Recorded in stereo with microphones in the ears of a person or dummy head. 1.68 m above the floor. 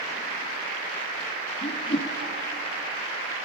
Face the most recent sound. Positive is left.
turn(degrees=30)  # may be behind; listen again after turning